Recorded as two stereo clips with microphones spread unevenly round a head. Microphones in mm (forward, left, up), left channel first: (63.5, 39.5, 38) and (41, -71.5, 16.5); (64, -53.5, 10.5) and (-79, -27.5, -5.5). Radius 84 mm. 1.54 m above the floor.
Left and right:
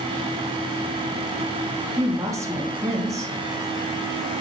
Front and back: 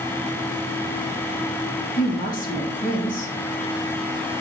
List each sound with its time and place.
2.0 s a woman speaking: 35° right, 1.5 m